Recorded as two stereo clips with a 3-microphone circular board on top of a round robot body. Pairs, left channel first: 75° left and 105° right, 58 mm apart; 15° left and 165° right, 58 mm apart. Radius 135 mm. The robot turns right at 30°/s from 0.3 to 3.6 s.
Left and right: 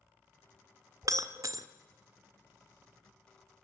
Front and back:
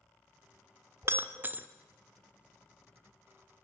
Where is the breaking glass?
125° right, 1.0 m; by 1.7 s 105° right, 1.0 m.